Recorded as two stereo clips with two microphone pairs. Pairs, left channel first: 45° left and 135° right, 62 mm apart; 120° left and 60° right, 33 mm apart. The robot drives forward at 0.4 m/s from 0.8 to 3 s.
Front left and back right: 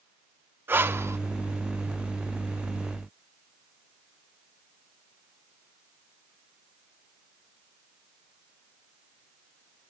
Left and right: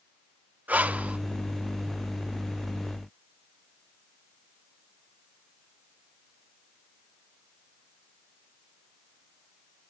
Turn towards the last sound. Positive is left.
turn(degrees=-150)